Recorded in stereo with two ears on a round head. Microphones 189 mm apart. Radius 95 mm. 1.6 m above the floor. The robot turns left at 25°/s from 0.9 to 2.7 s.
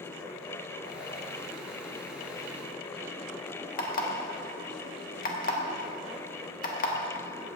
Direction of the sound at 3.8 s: 40° left (ahead or behind).